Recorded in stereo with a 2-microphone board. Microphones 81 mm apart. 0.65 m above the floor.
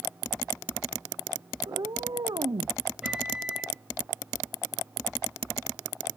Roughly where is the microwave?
Centre.